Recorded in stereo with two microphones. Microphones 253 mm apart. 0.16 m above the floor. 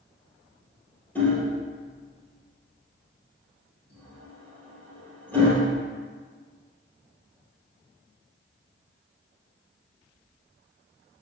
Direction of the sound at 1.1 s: 5° left (ahead or behind).